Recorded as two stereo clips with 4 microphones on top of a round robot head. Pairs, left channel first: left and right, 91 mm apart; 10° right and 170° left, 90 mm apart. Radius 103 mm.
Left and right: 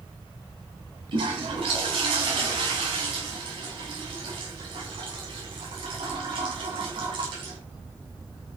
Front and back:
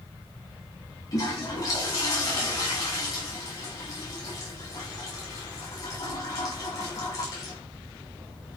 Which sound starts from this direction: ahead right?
A toilet flushing, at 1.1 s.